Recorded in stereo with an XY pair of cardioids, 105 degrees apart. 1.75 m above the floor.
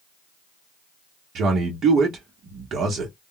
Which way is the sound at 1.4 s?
60° right.